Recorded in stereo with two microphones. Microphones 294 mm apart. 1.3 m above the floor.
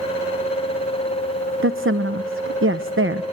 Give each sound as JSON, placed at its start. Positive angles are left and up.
{"t": 1.6, "sound": "a woman speaking", "side_deg": -45, "distance_m": 0.8}